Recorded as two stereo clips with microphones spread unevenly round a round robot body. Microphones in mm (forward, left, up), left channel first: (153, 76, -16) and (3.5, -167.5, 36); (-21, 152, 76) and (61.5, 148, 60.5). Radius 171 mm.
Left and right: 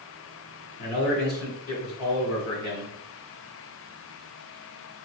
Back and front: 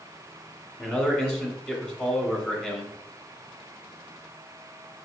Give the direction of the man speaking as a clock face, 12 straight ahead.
9 o'clock.